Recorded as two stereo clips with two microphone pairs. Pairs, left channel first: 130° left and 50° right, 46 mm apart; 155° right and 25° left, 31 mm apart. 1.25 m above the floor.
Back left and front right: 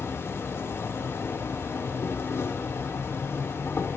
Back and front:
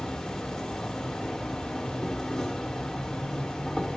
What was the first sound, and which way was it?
An insect, 135° left.